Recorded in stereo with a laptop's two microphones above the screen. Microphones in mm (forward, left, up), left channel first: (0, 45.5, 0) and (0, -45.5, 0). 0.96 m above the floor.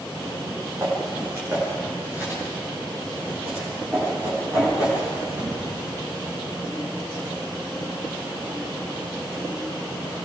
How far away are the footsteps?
About 9 m.